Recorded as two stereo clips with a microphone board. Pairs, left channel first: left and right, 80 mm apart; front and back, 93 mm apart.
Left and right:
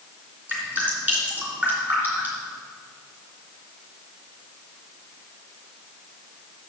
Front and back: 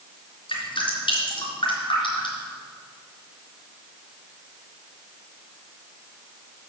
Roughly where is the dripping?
Ahead.